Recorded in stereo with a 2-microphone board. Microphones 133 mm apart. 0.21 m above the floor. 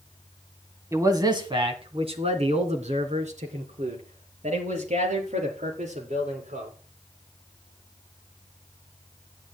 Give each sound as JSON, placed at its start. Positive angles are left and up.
{"t": 0.9, "sound": "a man speaking", "side_deg": -25, "distance_m": 1.6}